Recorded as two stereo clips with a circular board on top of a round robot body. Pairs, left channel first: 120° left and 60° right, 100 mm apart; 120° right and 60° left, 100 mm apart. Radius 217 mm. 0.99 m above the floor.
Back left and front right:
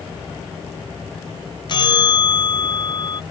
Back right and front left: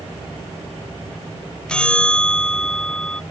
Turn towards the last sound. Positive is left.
turn(degrees=160)